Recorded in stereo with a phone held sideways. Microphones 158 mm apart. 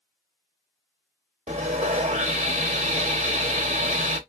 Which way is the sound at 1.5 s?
45° right (ahead or behind).